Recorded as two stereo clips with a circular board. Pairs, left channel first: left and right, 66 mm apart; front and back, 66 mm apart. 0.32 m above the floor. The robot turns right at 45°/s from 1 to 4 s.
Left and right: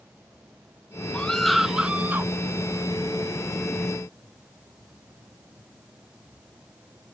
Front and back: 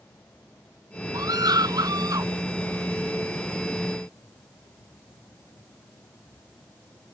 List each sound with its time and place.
1.1 s a scream: 160° left; by 2.3 s 145° right